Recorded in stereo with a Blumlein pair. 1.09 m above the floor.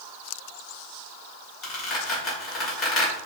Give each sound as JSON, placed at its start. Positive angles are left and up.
{"t": 1.6, "sound": "a squeak", "azimuth_deg": 25, "distance_m": 2.0}